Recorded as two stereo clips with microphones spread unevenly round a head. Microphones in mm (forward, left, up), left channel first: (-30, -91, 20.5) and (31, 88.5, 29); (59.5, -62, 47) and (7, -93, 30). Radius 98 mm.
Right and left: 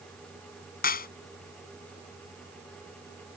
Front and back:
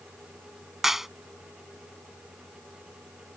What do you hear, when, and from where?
0.8 s a clap: 65° right